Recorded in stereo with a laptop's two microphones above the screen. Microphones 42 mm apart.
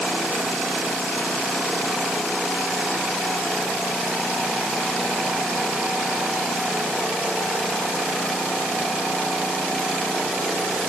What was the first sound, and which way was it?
Only background noise.